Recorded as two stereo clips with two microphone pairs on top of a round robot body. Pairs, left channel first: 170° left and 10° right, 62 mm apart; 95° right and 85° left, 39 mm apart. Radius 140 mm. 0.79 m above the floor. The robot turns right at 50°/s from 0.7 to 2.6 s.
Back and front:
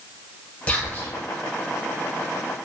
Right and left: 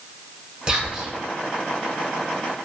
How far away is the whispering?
About 1.1 m.